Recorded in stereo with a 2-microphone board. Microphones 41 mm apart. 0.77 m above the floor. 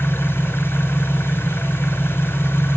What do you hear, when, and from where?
0.0 s an engine running: 80° left, 2 m